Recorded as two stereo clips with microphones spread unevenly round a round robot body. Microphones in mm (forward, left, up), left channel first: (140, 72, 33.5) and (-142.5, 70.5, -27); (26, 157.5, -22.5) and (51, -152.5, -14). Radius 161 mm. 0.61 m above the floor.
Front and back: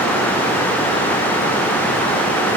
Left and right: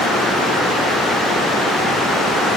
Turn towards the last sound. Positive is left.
No sound to turn to.